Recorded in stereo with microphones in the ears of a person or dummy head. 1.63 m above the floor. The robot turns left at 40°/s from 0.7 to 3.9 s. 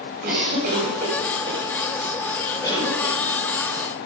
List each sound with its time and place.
0.2 s a cough: 60° right (ahead or behind), 7 m; by 3.1 s 40° left (ahead or behind), 7 m